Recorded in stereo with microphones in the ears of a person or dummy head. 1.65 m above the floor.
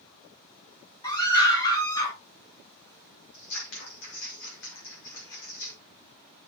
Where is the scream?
20° left (ahead or behind), 5.5 m; by 2.1 s 15° left (ahead or behind), 6 m.